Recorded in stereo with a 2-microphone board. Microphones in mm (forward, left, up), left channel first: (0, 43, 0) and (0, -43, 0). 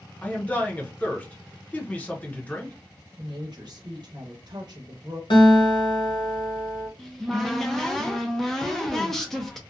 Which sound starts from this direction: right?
A woman speaking, at 3.2 s.